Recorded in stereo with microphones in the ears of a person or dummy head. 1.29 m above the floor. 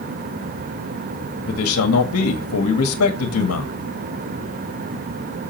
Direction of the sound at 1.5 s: 80° left.